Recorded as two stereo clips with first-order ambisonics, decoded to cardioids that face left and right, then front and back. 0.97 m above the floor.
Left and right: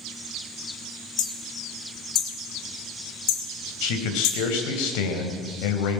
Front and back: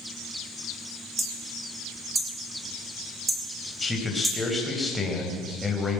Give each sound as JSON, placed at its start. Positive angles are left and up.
{"t": 1.2, "sound": "hammering", "azimuth_deg": 100, "distance_m": 3.0}
{"t": 3.8, "sound": "a man speaking", "azimuth_deg": 85, "distance_m": 4.5}